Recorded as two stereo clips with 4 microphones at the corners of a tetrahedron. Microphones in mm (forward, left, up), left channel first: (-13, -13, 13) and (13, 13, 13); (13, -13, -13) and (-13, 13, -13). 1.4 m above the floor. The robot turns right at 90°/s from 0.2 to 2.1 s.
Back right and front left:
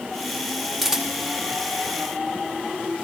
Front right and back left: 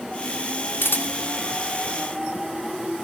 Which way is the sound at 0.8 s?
40° right.